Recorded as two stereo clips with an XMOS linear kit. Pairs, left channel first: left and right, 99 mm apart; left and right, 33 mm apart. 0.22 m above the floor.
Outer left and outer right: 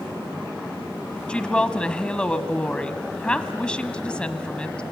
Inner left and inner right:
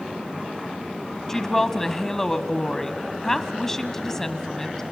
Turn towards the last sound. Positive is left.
turn(degrees=10)  # may be behind; listen again after turning